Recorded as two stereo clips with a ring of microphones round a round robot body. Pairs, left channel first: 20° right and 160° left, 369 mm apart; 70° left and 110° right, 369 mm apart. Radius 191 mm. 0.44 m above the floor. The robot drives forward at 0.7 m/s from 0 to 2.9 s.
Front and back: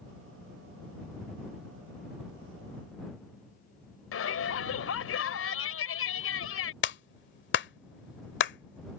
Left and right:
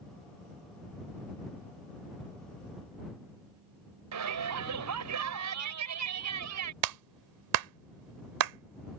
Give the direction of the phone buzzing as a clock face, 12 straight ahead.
No phone buzzing in this recording.